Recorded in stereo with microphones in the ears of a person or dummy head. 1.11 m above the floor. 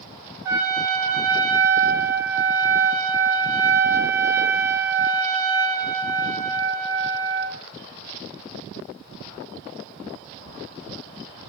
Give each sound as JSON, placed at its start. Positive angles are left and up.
{"t": 0.5, "sound": "a trumpet", "side_deg": -10, "distance_m": 0.6}